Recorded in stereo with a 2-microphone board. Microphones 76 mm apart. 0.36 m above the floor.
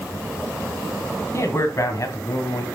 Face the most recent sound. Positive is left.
turn(degrees=55)  # may be behind; listen again after turning